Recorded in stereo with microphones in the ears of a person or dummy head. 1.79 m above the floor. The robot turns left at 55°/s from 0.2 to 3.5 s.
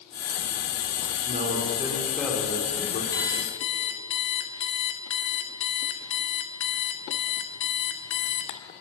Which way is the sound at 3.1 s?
20° left (ahead or behind).